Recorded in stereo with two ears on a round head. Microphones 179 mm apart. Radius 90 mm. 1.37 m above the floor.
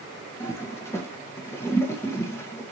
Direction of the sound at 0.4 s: 10° left (ahead or behind).